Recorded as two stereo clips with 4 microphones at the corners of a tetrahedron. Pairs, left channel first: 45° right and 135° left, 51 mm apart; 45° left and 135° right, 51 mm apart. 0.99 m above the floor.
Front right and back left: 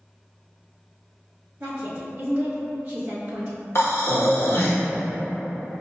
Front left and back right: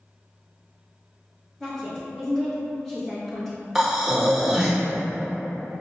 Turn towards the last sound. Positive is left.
turn(degrees=-50)